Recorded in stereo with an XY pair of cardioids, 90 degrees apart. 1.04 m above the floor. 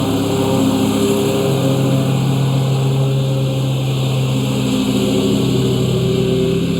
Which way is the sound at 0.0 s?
10° left.